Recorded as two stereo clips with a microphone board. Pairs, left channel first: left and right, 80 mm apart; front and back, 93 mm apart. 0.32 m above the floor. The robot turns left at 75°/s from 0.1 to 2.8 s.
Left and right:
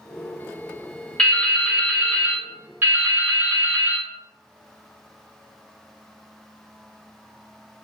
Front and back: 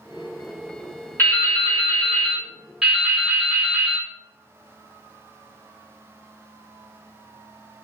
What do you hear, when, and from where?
1.2 s dripping: 25° left, 1.1 m; by 4.1 s 95° right, 1.1 m